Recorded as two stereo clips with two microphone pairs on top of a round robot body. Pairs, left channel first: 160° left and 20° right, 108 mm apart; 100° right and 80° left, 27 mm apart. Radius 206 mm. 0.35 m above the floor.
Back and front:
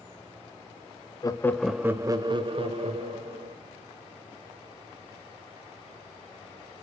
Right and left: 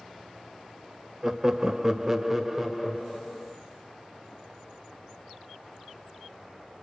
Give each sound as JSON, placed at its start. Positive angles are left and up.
{"t": 1.2, "sound": "laughter", "azimuth_deg": 130, "distance_m": 1.0}